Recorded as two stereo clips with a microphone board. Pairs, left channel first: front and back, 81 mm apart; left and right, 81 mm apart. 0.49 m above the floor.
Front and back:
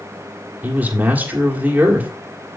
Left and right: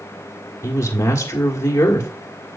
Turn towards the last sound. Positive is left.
turn(degrees=120)